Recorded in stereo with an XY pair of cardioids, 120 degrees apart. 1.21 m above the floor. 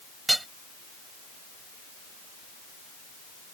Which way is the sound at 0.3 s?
10° right.